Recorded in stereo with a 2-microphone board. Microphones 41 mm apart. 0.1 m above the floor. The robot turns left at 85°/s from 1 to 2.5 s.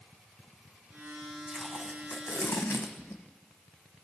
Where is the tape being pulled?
5° left (ahead or behind), 1.1 m; by 3.2 s 80° left, 1.1 m.